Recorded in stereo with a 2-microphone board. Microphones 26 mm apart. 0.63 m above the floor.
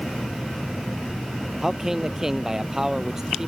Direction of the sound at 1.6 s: 20° right (ahead or behind).